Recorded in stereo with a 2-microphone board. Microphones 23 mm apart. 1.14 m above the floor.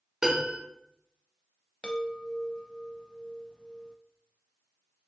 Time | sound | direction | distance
0.2 | a piano | 30° right (ahead or behind) | 1.1 m
1.8 | a chime | 40° left (ahead or behind) | 0.5 m